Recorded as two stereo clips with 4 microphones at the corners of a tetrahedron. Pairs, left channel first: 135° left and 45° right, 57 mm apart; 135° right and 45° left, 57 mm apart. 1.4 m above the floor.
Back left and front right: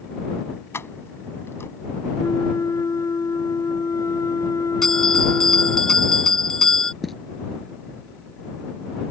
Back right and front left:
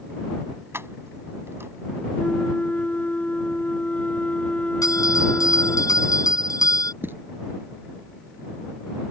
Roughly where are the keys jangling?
Left.